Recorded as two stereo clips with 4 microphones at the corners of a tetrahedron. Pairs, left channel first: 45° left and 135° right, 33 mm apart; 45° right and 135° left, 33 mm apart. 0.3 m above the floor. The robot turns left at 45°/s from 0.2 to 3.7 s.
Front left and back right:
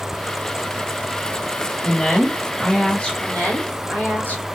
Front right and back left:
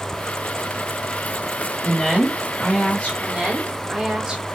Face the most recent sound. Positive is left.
turn(degrees=65)